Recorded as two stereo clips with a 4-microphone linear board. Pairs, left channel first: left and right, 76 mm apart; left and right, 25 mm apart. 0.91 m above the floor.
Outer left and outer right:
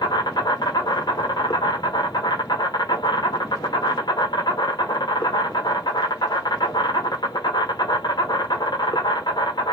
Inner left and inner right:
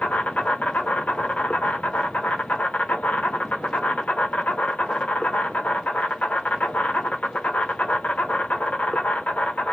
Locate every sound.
0.0 s an insect: 65° left (ahead or behind), 0.9 m